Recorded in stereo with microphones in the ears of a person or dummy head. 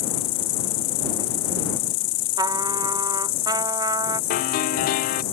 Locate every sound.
0.0 s an insect: 40° left (ahead or behind)
2.4 s a trumpet: 25° right (ahead or behind)
4.3 s a piano: 45° left (ahead or behind)